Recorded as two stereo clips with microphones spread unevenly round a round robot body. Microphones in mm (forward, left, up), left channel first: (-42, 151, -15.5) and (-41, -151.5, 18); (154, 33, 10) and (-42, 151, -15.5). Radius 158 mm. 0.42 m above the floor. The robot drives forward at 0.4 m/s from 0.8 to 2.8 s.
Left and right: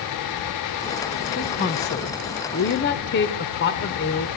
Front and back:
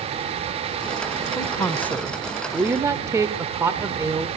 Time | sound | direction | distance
1.4 | a woman speaking | 45° left | 1.2 m